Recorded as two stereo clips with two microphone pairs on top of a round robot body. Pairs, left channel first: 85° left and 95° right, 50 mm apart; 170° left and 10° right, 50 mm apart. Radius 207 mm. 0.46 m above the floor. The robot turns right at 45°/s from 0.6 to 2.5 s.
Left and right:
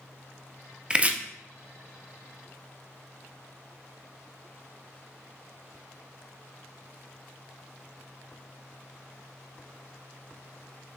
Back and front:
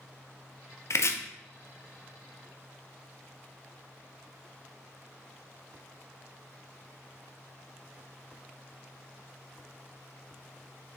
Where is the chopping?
160° right, 0.6 m; by 1.1 s 150° right, 0.6 m.